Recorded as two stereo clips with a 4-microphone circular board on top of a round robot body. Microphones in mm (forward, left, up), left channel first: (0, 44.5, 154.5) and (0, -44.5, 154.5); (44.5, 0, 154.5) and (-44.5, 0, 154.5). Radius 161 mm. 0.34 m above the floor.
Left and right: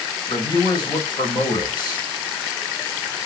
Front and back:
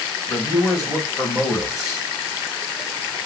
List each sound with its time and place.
0.3 s a man speaking: 55° left, 2.5 m